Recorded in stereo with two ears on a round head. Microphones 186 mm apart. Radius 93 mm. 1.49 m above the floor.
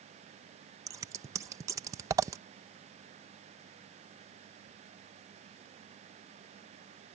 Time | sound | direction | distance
0.9 | scissors | 15° right (ahead or behind) | ?